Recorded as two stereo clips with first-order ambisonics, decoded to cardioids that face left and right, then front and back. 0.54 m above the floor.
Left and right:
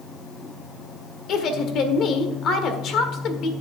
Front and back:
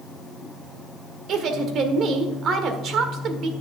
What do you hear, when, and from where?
1.3 s a woman speaking: 135° left, 1.4 m